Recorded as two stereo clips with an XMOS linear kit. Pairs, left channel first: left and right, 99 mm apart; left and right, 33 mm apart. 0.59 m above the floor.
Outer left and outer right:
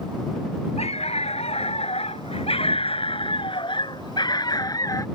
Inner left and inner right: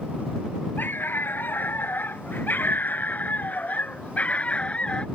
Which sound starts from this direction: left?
A dog barking, at 0.8 s.